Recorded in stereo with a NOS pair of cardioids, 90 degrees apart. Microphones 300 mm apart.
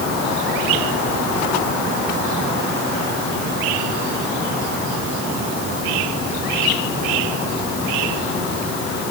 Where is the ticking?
I don't hear ticking.